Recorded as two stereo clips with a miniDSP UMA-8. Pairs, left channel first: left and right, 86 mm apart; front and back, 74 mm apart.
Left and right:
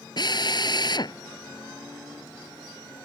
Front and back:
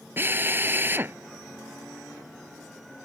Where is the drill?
120° left.